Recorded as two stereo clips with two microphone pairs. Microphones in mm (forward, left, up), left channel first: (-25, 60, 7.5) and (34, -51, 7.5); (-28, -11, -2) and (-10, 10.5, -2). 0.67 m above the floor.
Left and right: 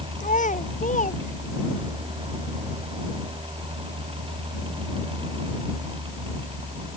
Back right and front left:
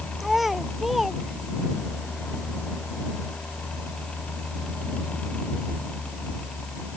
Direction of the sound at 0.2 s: 135° left.